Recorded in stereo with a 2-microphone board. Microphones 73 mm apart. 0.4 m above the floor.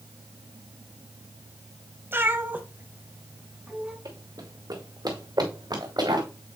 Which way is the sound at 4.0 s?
60° right (ahead or behind).